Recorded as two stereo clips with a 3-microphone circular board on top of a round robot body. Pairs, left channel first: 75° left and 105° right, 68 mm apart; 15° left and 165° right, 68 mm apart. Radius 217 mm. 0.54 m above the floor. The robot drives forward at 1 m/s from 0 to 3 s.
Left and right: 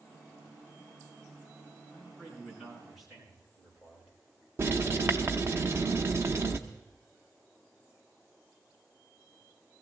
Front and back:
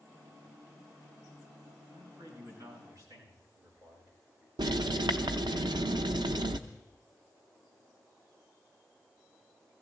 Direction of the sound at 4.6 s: 160° right.